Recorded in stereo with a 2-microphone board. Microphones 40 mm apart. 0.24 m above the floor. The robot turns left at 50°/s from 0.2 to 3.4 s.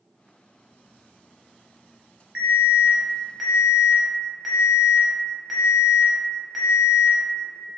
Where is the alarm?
120° right, 0.7 m; by 7.2 s 175° right, 0.7 m.